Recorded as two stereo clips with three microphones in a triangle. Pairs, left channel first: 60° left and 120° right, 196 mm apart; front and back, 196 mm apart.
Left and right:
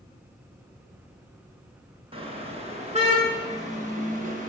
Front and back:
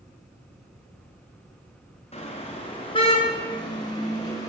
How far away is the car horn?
About 6 m.